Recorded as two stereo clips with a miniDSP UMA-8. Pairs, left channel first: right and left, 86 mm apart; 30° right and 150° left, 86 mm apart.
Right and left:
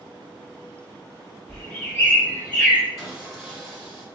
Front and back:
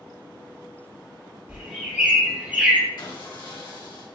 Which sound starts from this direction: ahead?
Sawing, at 3.0 s.